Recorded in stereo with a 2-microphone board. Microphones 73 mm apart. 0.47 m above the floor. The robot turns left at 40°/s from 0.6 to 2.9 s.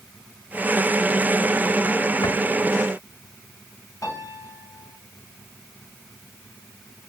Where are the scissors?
No scissors in this recording.